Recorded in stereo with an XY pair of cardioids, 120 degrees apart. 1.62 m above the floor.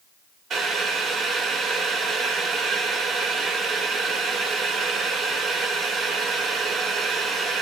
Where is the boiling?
50° right, 1.3 m.